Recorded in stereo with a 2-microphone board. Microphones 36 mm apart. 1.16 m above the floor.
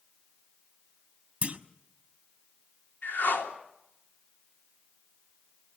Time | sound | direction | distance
1.4 | a clunk | 40° right (ahead or behind) | 1.2 m
3.0 | a whoosh | 65° left (ahead or behind) | 3 m